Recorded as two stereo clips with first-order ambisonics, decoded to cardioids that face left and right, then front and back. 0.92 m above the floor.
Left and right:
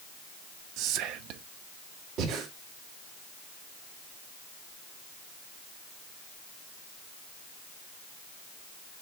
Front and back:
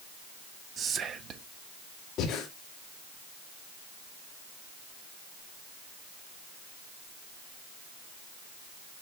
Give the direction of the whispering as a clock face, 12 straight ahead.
4 o'clock.